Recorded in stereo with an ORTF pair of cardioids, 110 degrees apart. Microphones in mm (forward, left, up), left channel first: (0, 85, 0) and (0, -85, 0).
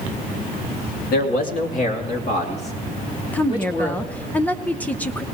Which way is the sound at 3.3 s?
10° left.